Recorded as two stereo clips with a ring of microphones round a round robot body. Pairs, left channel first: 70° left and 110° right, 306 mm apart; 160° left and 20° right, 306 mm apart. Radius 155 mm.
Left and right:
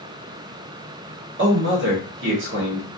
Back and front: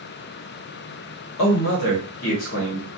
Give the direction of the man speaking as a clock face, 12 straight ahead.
5 o'clock.